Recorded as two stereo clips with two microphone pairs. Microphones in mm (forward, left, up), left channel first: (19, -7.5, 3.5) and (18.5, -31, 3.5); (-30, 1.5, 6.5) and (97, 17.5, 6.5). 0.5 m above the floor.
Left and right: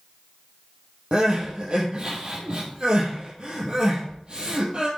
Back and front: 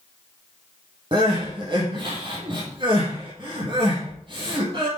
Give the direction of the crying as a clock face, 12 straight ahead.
1 o'clock.